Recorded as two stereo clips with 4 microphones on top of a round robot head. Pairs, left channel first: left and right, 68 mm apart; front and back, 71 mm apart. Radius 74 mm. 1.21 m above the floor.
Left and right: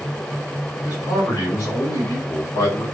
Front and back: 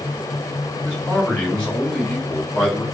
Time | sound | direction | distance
0.8 | a man speaking | 75° left | 2 m